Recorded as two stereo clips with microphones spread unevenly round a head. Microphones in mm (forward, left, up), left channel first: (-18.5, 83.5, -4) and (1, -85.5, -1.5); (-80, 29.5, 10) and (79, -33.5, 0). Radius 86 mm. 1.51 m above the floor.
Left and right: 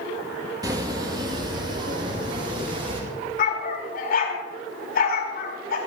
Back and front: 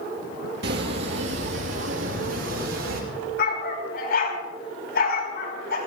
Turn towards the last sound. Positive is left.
turn(degrees=125)